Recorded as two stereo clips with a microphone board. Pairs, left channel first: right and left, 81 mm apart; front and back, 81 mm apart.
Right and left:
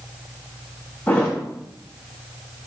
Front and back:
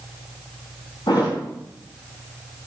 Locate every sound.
1.1 s a thud: 25° right, 4.5 m